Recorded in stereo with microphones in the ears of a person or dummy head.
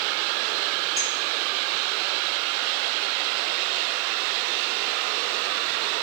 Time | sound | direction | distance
1.0 | a clink | 20° right (ahead or behind) | 3.5 m